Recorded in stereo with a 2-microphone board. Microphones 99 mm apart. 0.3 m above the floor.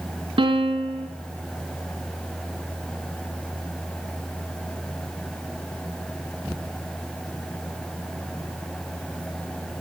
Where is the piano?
60° right (ahead or behind), 1.4 m.